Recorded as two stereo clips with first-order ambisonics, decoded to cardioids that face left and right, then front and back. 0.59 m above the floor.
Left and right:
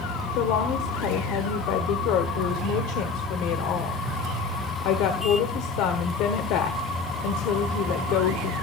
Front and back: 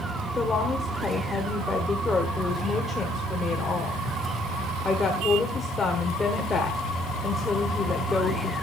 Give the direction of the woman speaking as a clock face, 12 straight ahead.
10 o'clock.